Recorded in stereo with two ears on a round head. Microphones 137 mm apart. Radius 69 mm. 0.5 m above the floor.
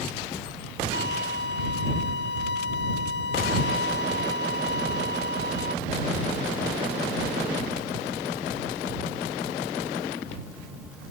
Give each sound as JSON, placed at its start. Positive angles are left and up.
{"t": 0.9, "sound": "a violin", "side_deg": 85}